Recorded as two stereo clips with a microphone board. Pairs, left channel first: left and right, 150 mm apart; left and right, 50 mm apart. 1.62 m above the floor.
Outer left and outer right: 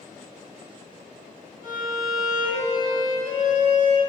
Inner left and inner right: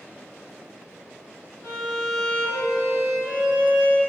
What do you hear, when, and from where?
1.6 s a violin: 65° left (ahead or behind), 0.8 m